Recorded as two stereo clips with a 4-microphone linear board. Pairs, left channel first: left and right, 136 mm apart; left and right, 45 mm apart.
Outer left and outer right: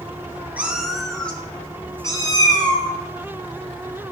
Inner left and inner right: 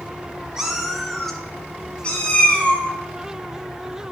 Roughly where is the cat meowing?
Centre.